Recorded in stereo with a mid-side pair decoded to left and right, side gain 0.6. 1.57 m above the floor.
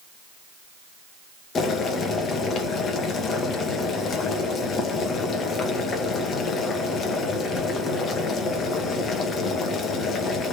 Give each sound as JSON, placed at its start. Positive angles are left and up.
{"t": 1.6, "sound": "boiling", "azimuth_deg": 40, "distance_m": 2.0}